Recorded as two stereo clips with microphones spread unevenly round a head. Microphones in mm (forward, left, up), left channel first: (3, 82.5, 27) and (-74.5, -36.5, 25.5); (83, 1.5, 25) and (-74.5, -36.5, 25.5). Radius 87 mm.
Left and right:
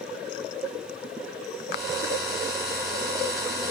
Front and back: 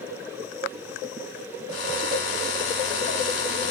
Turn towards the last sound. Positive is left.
turn(degrees=-35)